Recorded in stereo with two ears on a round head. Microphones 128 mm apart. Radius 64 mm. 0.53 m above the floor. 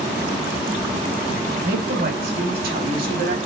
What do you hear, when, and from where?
1.6 s a woman speaking: 70° right (ahead or behind), 4 m